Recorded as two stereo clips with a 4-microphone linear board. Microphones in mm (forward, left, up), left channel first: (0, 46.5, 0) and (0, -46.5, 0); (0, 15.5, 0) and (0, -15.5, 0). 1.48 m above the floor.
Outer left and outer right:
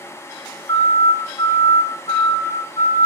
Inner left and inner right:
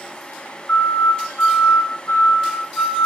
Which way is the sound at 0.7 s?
60° left (ahead or behind).